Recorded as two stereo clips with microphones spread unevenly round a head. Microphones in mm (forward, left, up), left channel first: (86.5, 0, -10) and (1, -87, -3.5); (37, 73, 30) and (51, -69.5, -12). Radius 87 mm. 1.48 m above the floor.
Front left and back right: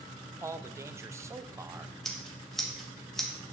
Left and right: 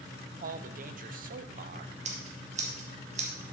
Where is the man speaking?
65° right, 0.9 m.